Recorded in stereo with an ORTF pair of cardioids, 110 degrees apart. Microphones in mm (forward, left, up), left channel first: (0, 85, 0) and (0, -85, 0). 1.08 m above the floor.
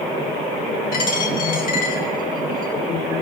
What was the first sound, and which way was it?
A dropped coin, 60° left.